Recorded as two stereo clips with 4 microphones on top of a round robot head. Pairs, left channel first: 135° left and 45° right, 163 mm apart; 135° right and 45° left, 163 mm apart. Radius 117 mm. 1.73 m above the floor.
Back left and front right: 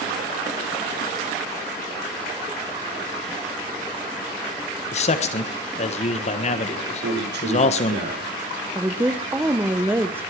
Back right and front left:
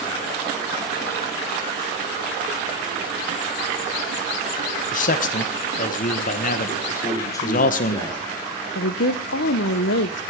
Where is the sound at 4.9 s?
175° right, 1.4 m.